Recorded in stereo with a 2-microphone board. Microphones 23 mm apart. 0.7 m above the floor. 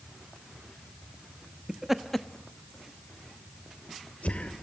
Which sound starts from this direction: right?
Laughter, at 1.7 s.